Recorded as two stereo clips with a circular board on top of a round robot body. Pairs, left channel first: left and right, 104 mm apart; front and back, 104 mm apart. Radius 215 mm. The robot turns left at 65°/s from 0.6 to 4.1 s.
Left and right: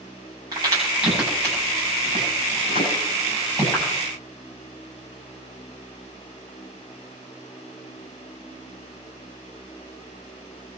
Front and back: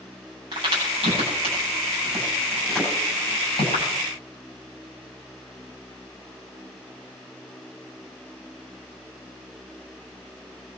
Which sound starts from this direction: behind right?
A crack, at 0.5 s.